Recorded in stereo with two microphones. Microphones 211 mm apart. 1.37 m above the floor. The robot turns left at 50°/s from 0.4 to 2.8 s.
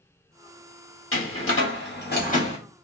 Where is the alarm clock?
I don't hear an alarm clock.